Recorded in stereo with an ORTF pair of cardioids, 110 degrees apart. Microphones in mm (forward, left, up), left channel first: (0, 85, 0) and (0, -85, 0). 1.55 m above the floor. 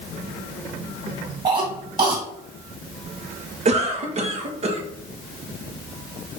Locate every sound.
1.4 s a cough: 30° right, 2 m
3.6 s a cough: 40° right, 1.3 m